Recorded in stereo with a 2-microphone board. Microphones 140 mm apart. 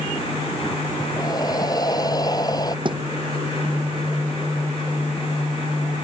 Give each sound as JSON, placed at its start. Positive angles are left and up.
{"t": 1.2, "sound": "breathing", "side_deg": 25}
{"t": 2.9, "sound": "a thud", "side_deg": -35}